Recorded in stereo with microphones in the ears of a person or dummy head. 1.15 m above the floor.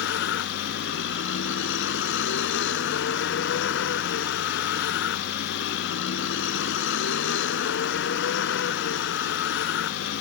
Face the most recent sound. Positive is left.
turn(degrees=80)